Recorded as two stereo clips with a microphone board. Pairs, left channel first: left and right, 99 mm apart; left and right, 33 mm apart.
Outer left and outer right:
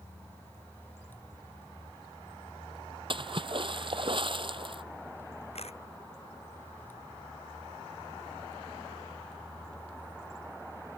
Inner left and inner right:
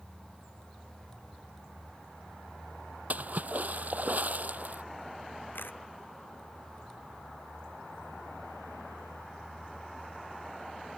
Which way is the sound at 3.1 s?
55° right (ahead or behind).